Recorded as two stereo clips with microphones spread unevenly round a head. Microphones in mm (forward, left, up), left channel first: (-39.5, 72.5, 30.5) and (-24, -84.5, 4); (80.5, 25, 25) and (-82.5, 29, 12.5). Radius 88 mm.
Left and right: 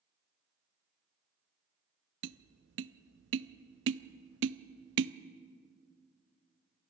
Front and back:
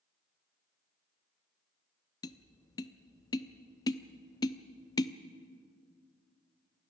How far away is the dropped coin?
I don't hear a dropped coin.